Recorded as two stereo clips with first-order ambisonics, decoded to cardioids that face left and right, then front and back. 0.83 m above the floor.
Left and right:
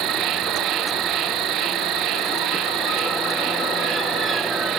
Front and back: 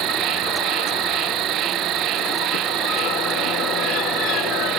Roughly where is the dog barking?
No dog barking in this recording.